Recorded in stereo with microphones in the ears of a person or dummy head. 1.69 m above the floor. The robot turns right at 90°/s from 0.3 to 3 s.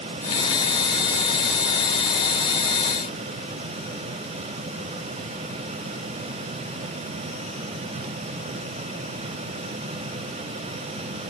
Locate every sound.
Only background noise.